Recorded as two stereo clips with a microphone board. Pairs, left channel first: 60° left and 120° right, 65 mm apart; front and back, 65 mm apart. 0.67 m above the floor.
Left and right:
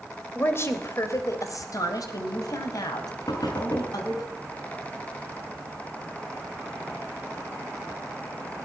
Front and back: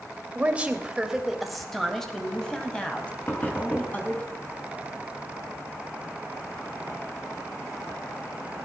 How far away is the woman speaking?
About 3 m.